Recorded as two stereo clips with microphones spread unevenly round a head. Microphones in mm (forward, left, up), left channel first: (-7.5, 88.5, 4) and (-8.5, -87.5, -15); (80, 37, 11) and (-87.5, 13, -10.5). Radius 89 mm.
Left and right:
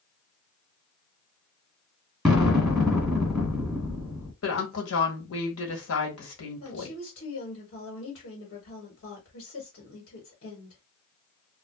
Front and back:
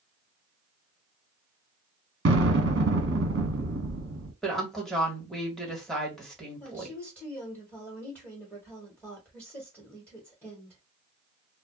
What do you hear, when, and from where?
2.2 s an explosion: 175° left, 1.5 m
4.4 s a woman speaking: 100° left, 1.4 m
6.6 s a woman speaking: 95° left, 1.4 m